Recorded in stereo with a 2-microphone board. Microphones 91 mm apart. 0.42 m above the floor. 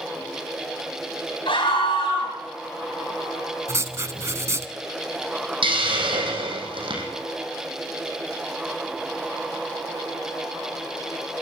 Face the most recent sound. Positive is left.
turn(degrees=-65)  # may be behind; listen again after turning